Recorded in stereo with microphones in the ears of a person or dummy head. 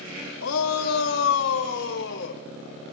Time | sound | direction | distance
0.4 | a shout | 80° left | 2.5 m